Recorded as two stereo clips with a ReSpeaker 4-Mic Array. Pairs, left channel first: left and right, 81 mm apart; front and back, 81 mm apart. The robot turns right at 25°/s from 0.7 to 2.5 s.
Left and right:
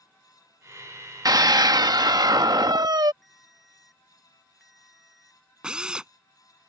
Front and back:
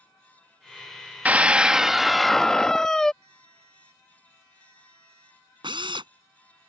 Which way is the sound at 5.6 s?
170° right.